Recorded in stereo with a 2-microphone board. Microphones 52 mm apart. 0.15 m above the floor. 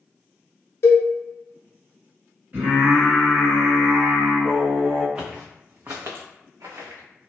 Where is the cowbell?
55° left (ahead or behind), 0.5 m.